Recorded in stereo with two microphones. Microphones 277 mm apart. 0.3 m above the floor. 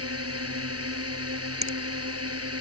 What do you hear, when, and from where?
0.0 s a drone: 55° right (ahead or behind)
1.6 s a finger snap: 70° right (ahead or behind)